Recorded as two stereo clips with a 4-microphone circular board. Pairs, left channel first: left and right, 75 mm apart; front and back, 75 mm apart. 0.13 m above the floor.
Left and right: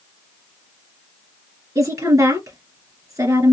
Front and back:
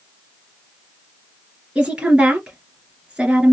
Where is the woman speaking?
105° right, 2.5 m.